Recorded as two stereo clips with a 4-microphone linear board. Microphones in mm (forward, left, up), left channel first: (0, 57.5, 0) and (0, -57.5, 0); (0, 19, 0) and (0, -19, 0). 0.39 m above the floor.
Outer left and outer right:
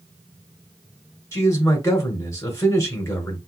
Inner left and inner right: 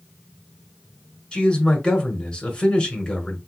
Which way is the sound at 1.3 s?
25° left (ahead or behind).